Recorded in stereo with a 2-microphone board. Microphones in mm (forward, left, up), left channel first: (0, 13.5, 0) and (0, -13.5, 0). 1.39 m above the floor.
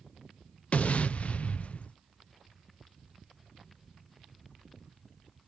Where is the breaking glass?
No breaking glass in this recording.